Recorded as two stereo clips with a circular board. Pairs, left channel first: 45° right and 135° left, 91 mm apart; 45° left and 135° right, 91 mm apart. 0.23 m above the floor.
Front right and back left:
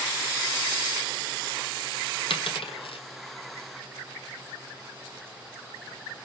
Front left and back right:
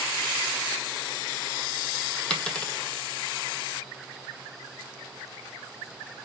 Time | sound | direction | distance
2.3 | a dropped coin | 35° right | 1.0 m